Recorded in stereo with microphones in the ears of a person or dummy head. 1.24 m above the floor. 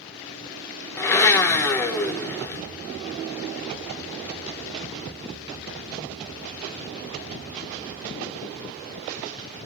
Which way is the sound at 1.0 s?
15° left (ahead or behind).